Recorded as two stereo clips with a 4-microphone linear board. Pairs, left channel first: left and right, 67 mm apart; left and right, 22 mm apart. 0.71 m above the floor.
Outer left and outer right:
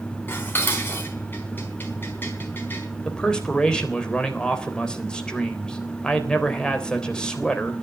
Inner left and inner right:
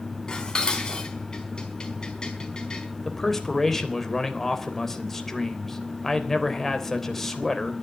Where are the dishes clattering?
35° left (ahead or behind), 4.5 m.